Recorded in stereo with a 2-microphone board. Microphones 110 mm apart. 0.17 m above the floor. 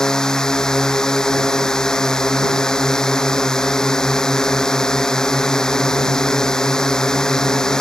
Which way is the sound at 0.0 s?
5° left (ahead or behind).